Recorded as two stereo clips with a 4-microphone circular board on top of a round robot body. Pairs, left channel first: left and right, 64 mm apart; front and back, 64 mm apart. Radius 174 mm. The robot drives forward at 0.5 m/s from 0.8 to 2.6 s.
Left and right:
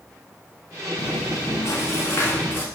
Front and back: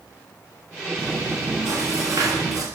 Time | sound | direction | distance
1.0 | chewing | 120° left | 0.8 m